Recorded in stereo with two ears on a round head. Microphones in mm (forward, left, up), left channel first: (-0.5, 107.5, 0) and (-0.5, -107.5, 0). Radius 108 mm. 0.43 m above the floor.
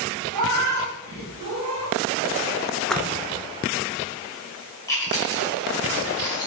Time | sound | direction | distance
0.3 | a cat meowing | 80° right | 1.6 m
2.9 | a splash | 5° left (ahead or behind) | 0.6 m
4.9 | chewing | 15° left (ahead or behind) | 1.9 m